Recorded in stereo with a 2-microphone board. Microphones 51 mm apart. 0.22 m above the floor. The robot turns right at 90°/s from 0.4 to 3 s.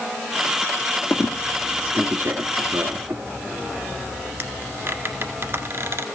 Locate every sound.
1.1 s a squeak: 45° left (ahead or behind), 1.5 m; by 6.0 s 50° right (ahead or behind), 1.5 m